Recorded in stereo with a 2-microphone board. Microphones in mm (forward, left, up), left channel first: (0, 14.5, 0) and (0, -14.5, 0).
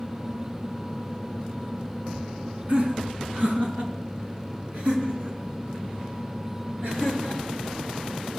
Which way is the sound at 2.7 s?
50° right (ahead or behind).